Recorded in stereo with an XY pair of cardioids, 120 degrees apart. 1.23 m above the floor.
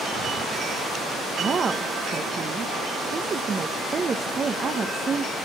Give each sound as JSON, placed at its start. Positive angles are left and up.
{"t": 1.4, "sound": "a woman speaking", "azimuth_deg": -35, "distance_m": 0.8}